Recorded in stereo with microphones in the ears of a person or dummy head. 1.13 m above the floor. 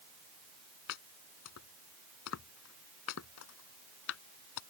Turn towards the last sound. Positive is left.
turn(degrees=75)  # may be behind; listen again after turning